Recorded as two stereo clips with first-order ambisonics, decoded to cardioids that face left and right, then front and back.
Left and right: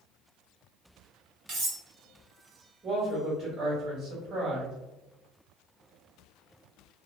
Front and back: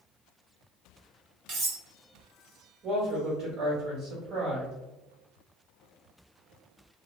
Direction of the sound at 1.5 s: 145° right.